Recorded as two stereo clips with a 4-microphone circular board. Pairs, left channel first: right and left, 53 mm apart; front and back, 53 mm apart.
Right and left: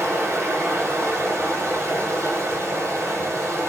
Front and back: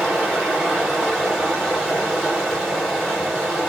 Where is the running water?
100° left, 1.8 m.